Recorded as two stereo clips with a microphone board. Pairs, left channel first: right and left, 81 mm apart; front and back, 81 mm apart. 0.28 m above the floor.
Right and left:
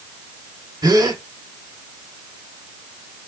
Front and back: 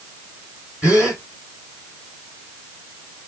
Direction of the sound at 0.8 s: 110° left.